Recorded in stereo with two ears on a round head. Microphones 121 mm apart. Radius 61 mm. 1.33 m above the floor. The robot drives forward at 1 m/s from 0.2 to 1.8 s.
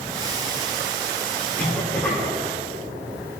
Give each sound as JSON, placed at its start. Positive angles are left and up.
{"t": 1.6, "sound": "a cough", "side_deg": 20, "distance_m": 3.5}